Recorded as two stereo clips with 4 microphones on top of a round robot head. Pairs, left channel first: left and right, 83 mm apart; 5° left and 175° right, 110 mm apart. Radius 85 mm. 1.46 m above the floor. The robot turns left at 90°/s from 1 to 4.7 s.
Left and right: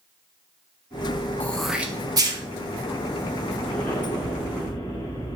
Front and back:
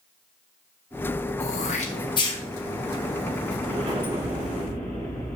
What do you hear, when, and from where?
1.4 s throat clearing: 20° left, 1.5 m; by 2.4 s 70° right, 1.5 m
3.6 s an explosion: 165° left, 3.5 m; by 5.4 s 70° left, 3.5 m